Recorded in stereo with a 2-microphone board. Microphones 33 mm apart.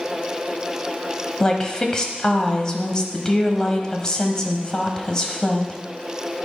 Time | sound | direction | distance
1.4 | a woman speaking | 20° left (ahead or behind) | 1.1 m